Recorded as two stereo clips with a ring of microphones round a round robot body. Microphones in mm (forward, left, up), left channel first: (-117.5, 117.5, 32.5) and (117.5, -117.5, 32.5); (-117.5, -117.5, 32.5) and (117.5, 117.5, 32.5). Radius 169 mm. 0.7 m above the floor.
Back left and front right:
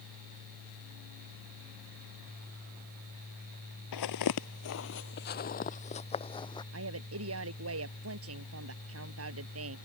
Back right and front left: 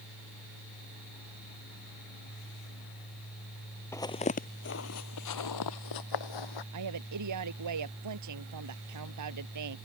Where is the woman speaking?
5° left.